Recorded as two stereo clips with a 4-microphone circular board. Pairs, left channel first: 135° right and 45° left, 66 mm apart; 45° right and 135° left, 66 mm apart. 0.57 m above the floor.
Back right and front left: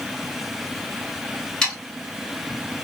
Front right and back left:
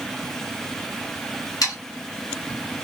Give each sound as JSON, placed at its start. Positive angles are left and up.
{"t": 1.6, "sound": "sawing", "azimuth_deg": -60, "distance_m": 3.0}